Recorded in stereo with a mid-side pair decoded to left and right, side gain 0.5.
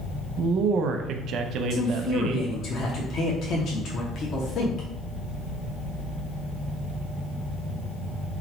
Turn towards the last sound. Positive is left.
turn(degrees=55)